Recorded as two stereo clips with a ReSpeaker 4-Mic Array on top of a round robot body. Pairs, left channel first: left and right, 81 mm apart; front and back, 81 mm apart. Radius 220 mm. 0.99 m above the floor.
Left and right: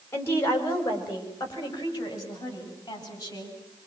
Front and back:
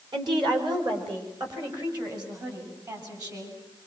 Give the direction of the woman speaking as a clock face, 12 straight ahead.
7 o'clock.